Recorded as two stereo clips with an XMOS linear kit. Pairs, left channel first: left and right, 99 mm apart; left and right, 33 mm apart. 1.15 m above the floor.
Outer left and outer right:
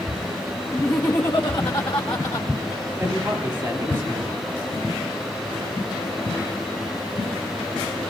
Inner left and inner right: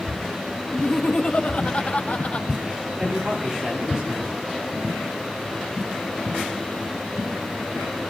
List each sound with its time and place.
0.7 s laughter: 25° left (ahead or behind), 1.2 m; by 2.5 s 65° left (ahead or behind), 3 m
3.0 s a man speaking: 20° right (ahead or behind), 10 m